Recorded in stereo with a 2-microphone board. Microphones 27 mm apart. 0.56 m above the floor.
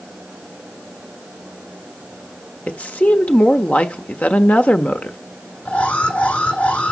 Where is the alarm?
75° left (ahead or behind), 7 m.